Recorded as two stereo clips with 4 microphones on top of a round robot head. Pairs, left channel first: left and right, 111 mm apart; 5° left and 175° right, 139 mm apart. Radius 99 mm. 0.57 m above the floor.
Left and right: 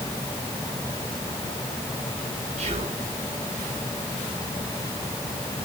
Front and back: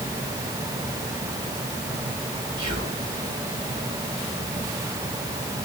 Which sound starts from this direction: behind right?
Whispering, at 2.6 s.